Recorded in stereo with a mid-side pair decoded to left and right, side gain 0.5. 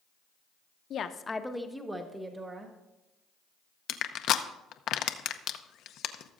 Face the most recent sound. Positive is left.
turn(degrees=65)